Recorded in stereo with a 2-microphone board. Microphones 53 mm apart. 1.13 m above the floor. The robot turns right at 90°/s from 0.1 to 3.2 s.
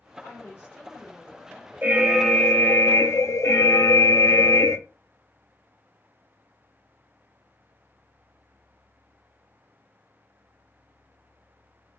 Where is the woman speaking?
105° left, 1.2 m; by 2.8 s 20° right, 1.2 m.